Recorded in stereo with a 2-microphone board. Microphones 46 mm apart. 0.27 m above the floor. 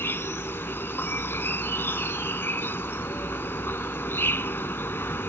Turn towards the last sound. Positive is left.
turn(degrees=60)  # may be behind; listen again after turning